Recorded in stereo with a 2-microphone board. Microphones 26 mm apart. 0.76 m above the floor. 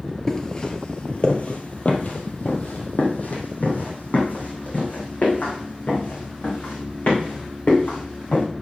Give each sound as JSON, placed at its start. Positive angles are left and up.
{"t": 0.3, "sound": "footsteps", "side_deg": 20, "distance_m": 1.0}